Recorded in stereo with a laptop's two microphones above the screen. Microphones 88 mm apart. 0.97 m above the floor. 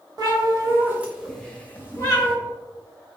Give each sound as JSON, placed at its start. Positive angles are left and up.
{"t": 0.2, "sound": "a cat meowing", "side_deg": -45, "distance_m": 1.0}